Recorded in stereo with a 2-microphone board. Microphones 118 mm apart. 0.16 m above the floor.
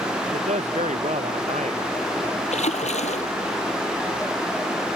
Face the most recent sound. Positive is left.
turn(degrees=75)  # may be behind; listen again after turning